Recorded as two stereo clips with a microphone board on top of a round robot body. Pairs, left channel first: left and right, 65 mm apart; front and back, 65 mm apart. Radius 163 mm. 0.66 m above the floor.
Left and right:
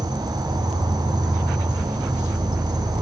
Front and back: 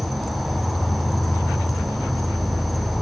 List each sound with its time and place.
0.0 s an insect: 90° right, 1.5 m